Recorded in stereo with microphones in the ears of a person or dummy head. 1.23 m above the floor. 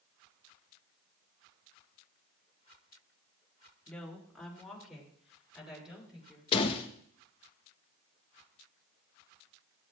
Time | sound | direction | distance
3.9 | a woman speaking | 5° left (ahead or behind) | 2 m
6.5 | a door slam | 25° left (ahead or behind) | 1.0 m